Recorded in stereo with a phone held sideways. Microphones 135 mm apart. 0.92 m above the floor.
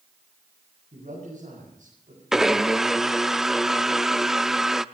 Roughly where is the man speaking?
Right.